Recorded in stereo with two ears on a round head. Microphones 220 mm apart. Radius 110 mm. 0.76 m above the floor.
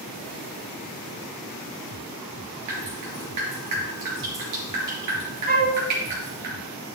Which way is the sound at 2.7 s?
85° right.